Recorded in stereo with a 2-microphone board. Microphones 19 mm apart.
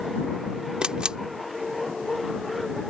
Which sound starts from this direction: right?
A camera shutter, at 0.8 s.